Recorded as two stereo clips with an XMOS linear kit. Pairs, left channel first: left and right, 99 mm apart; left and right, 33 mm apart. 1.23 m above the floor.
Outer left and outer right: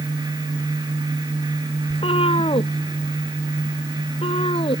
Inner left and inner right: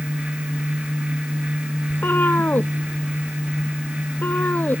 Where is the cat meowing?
80° left.